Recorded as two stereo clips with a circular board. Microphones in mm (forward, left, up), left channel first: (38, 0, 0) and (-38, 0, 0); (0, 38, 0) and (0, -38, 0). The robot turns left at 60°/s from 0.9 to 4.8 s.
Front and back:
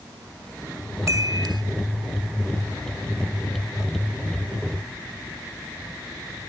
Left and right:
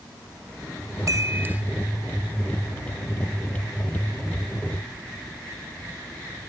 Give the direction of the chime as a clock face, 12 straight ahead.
4 o'clock.